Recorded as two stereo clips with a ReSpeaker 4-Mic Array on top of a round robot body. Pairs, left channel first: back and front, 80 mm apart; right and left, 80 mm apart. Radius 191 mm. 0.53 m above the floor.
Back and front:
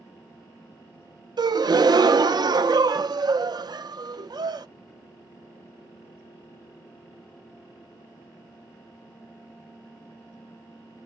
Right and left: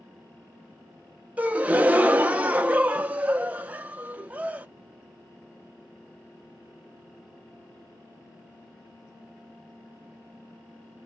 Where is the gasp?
20° left, 0.7 m.